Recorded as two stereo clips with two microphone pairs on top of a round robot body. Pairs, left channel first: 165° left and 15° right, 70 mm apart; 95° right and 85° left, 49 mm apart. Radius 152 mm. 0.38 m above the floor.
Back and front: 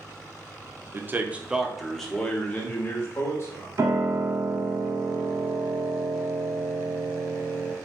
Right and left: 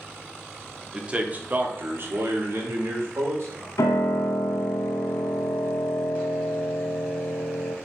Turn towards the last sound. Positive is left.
turn(degrees=-75)